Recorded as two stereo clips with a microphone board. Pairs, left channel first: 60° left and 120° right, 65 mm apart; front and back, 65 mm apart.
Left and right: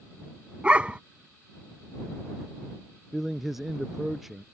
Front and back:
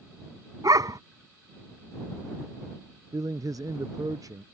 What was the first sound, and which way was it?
A dog barking, 170° left.